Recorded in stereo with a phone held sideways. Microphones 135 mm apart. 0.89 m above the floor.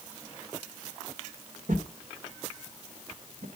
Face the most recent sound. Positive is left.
turn(degrees=-75)  # may be behind; listen again after turning